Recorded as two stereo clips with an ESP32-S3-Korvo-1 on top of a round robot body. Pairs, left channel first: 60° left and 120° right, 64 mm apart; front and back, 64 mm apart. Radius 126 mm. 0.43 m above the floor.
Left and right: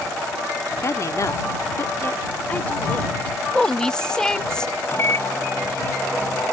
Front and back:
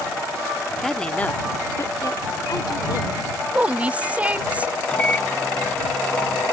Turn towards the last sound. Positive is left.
turn(degrees=60)